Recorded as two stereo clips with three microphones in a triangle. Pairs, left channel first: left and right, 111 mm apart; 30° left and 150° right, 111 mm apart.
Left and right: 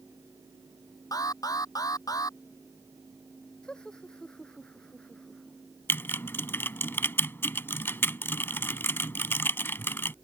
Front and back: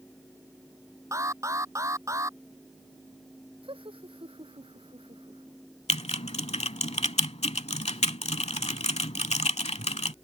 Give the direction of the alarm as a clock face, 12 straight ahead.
7 o'clock.